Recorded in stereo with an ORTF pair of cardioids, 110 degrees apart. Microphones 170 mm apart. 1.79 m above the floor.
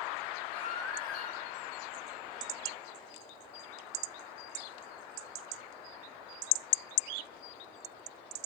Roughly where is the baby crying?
Ahead left.